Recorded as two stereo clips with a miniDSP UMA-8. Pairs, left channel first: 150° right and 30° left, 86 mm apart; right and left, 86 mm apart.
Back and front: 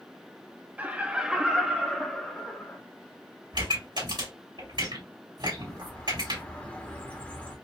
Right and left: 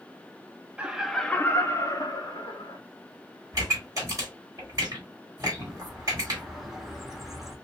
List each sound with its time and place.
0.8 s laughter: 50° left, 0.6 m; by 2.8 s 75° right, 1.2 m
3.5 s a pop: 40° left, 2.5 m
5.5 s a bird: 170° left, 1.0 m